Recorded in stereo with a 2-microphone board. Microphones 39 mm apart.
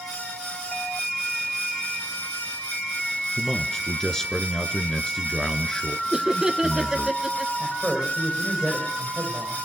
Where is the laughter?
15° right (ahead or behind), 1.5 m.